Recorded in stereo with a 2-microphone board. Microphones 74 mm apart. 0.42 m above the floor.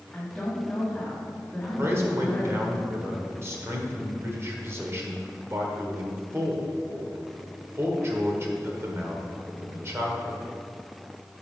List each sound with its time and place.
0.1 s a woman speaking: 5° left (ahead or behind), 2.5 m
1.8 s a man speaking: 35° right (ahead or behind), 1.4 m